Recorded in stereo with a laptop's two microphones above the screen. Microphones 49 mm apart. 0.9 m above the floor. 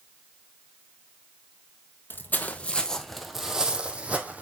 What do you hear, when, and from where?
2.1 s footsteps: 40° left (ahead or behind), 1.4 m; by 4.4 s 35° right (ahead or behind), 2 m